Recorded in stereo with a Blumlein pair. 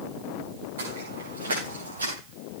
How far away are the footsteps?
About 6 m.